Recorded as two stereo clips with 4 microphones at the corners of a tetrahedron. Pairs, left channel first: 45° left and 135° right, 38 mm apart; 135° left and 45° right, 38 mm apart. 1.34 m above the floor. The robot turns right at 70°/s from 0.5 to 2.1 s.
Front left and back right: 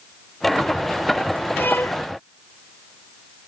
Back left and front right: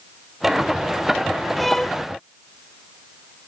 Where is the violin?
45° left; by 2.0 s 70° left.